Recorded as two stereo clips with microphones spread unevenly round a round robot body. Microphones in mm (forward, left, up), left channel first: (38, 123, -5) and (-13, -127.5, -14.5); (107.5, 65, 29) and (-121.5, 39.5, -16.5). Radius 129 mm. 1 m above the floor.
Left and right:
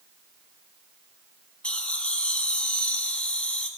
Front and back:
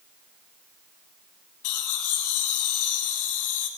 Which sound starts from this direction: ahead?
Laughter, at 1.6 s.